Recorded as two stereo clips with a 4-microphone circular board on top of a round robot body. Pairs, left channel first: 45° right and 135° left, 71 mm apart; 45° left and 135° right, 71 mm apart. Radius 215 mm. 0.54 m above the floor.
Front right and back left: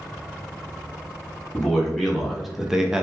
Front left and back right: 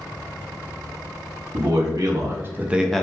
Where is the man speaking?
130° right, 1.0 m; by 3.0 s 95° left, 0.6 m.